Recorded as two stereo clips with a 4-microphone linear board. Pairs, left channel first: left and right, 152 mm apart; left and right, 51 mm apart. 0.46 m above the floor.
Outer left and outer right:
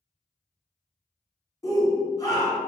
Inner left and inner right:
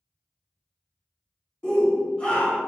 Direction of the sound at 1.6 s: 20° left (ahead or behind).